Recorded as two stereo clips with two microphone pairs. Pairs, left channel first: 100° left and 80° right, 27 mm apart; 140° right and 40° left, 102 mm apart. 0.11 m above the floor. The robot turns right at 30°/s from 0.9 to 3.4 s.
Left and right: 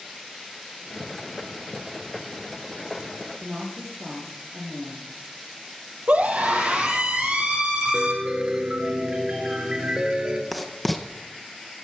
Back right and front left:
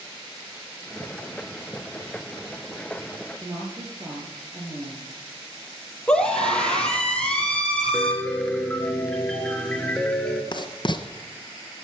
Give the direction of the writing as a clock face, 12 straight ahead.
6 o'clock.